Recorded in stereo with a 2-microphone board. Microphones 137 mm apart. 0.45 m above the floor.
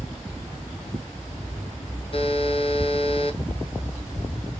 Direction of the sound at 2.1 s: 40° left (ahead or behind).